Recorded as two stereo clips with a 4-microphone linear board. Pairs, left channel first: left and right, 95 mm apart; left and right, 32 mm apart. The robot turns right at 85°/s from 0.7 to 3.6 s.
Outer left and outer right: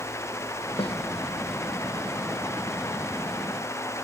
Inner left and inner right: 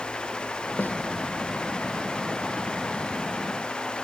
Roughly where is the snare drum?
Left.